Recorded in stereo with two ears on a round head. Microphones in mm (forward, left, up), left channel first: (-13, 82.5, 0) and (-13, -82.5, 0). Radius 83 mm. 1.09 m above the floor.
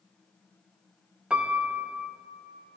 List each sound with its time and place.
1.3 s a piano: 5° right (ahead or behind), 0.5 m